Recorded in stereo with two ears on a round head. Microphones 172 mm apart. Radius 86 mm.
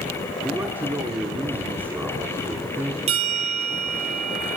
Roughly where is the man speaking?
Centre.